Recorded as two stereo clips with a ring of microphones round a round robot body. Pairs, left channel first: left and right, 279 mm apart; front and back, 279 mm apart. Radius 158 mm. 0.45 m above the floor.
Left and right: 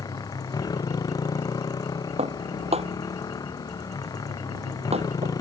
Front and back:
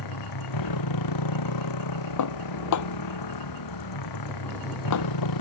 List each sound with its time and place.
0.0 s a motorcycle: 15° left
2.2 s dishes clattering: 20° right